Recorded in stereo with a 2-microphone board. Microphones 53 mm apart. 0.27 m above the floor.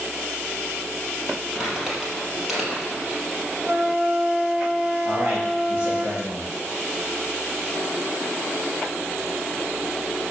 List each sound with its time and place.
1.6 s crumpling: 5° right (ahead or behind), 3.5 m
3.6 s a flute: 5° right (ahead or behind), 1.2 m
5.0 s a man speaking: 40° right (ahead or behind), 4.5 m